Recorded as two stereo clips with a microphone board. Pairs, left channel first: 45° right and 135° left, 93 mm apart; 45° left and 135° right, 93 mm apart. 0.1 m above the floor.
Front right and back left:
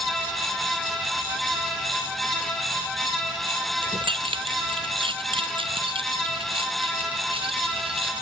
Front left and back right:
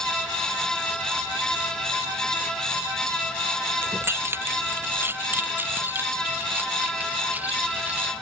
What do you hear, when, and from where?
3.8 s keys jangling: 160° left; by 8.1 s 150° left